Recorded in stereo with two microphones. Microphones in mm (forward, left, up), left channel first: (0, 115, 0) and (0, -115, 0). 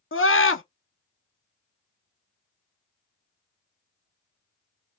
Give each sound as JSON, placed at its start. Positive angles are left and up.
{"t": 0.1, "sound": "a scream", "side_deg": 60, "distance_m": 0.8}